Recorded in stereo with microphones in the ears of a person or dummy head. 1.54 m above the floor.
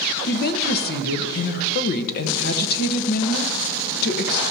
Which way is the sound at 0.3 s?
55° left (ahead or behind).